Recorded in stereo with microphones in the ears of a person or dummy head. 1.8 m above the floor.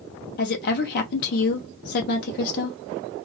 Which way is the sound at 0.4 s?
55° left (ahead or behind).